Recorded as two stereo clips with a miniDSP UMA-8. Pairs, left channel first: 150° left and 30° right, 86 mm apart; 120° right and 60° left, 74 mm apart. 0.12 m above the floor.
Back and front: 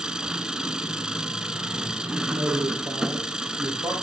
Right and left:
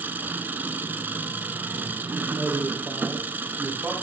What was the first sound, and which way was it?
An engine running, 40° left.